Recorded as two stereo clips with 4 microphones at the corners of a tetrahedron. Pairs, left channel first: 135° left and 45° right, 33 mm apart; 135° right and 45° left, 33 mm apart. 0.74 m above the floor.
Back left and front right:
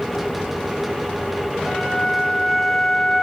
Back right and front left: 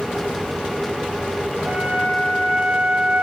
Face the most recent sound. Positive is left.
turn(degrees=40)